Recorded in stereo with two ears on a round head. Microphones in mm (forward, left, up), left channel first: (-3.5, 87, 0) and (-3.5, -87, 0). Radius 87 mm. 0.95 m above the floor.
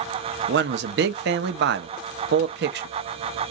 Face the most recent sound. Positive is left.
turn(degrees=-60)  # may be behind; listen again after turning